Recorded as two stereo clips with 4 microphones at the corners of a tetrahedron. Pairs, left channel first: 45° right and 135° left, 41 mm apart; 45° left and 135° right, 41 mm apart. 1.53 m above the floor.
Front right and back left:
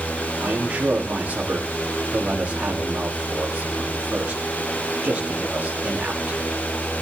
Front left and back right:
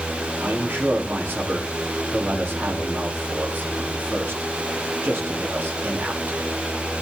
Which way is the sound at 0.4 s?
170° right.